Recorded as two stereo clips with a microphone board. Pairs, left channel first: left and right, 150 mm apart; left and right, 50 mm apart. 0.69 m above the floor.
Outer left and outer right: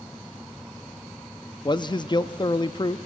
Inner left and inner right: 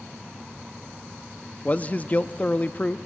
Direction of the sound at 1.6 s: 30° left (ahead or behind).